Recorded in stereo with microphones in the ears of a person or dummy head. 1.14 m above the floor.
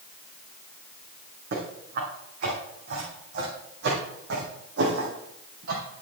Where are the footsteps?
55° right (ahead or behind), 4.5 m; by 6.0 s 75° right (ahead or behind), 3.5 m.